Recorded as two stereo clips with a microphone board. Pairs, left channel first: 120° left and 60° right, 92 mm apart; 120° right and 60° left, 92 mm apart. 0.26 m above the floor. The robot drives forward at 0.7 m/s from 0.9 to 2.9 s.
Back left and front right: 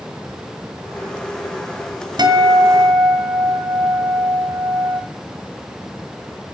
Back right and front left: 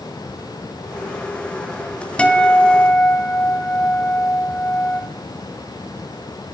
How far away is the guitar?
About 1.8 m.